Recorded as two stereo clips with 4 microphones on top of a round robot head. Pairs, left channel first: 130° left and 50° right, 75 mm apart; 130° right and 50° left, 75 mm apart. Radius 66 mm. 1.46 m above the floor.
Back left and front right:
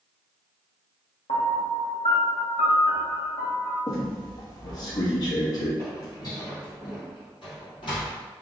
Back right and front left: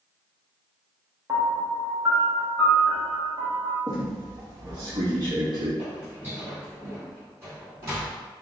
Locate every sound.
1.3 s a piano: 110° left, 1.0 m
3.9 s a squeak: 90° left, 1.5 m
5.8 s footsteps: 105° left, 1.5 m; by 8.2 s 110° left, 2.5 m